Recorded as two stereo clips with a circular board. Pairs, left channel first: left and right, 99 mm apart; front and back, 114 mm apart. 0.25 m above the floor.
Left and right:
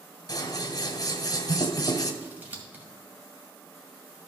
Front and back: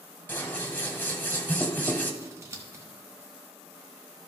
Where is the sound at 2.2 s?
145° right, 1.8 m.